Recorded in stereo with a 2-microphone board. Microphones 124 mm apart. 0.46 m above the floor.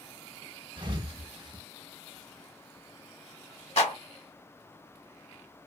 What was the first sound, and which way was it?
A thud, 40° right (ahead or behind).